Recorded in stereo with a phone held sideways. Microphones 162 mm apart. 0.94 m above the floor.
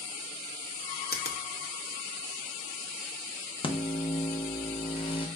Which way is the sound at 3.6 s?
30° left (ahead or behind).